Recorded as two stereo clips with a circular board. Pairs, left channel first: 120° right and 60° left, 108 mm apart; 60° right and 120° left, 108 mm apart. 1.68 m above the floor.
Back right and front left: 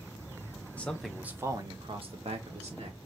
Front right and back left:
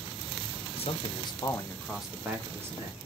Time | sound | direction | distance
0.8 | a man speaking | 40° right | 1.2 m